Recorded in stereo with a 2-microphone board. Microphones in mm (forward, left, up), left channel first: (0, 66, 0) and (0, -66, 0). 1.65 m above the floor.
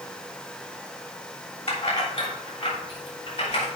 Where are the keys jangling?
55° left (ahead or behind), 3 m.